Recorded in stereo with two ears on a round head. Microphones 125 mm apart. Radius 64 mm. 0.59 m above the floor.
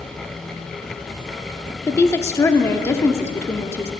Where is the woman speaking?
20° left (ahead or behind), 0.9 m.